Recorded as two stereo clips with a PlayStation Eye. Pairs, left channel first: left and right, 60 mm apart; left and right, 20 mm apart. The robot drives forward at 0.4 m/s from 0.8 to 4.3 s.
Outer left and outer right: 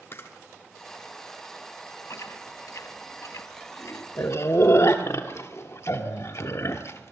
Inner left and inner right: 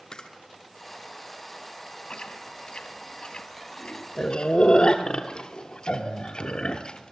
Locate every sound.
0.1 s a camera shutter: 45° left (ahead or behind), 1.5 m
2.1 s chewing: 60° left (ahead or behind), 1.2 m; by 7.1 s 55° left (ahead or behind), 1.3 m